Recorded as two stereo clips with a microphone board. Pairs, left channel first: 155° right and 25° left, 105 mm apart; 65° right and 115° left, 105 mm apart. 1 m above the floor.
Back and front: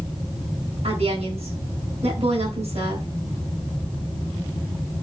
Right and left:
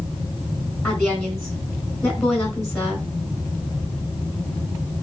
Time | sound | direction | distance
0.8 | a woman speaking | 5° left | 4.5 m